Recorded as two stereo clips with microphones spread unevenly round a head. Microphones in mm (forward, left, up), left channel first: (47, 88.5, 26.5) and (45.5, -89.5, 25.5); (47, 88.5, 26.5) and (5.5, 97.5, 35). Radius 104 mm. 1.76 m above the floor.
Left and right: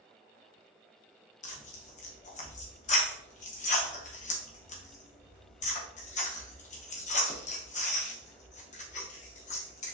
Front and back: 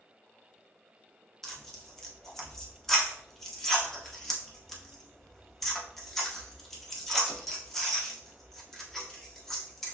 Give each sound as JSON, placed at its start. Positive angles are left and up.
{"t": 1.4, "sound": "tearing paper", "azimuth_deg": 85, "distance_m": 1.0}